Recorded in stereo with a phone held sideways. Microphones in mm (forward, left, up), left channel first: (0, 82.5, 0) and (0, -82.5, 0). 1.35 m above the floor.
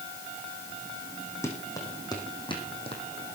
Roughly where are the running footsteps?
Centre.